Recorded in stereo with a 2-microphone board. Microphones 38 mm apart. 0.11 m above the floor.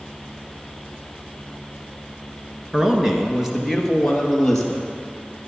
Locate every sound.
2.7 s a man speaking: 15° right (ahead or behind), 1.2 m; by 4.9 s 5° left (ahead or behind), 3 m